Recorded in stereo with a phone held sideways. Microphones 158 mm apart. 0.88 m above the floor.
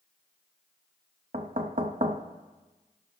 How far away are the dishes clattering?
No dishes clattering in this recording.